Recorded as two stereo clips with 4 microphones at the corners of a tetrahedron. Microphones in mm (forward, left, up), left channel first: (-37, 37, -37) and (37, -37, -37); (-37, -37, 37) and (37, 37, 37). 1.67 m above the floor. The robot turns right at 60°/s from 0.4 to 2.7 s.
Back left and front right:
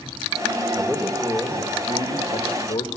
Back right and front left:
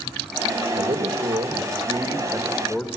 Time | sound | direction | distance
0.8 | a man speaking | 30° left | 2.5 m